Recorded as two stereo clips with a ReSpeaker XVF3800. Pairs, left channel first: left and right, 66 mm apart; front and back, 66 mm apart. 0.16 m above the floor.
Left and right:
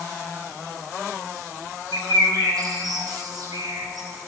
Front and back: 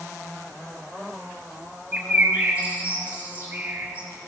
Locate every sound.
1.9 s a bird: 110° right, 1.6 m